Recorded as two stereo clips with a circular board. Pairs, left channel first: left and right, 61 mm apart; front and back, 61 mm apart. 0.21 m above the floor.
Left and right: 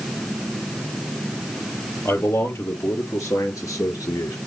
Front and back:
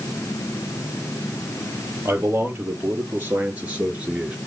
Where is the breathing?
No breathing in this recording.